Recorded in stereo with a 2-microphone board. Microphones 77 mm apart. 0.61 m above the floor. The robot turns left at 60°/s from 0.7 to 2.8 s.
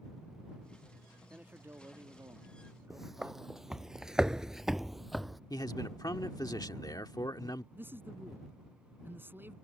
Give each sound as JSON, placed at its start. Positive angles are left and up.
{"t": 1.3, "sound": "a man speaking", "azimuth_deg": -25}
{"t": 2.9, "sound": "footsteps", "side_deg": -5}
{"t": 5.5, "sound": "a man speaking", "side_deg": 55}
{"t": 7.8, "sound": "a man speaking", "side_deg": -25}